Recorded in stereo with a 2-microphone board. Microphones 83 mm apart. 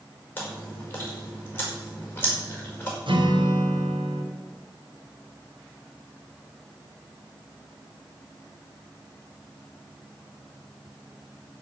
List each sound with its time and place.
0.4 s chewing: 25° left (ahead or behind), 5 m
3.1 s a guitar: 80° right, 3.5 m